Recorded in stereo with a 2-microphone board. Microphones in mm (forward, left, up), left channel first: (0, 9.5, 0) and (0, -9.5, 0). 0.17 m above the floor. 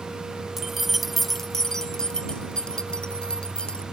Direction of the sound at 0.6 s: 20° right (ahead or behind).